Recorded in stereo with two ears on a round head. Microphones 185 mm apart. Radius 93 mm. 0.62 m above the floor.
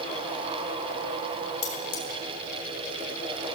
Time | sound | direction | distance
1.6 | cutlery clinking | 70° left (ahead or behind) | 3.5 m